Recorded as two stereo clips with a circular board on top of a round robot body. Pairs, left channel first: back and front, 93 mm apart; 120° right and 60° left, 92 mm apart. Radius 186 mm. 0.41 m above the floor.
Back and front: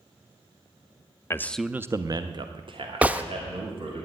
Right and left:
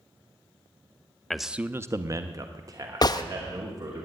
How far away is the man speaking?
About 0.8 m.